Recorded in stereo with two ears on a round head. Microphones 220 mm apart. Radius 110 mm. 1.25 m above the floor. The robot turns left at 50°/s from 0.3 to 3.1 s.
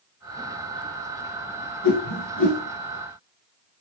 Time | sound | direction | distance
1.8 | a whoosh | 80° left | 4 m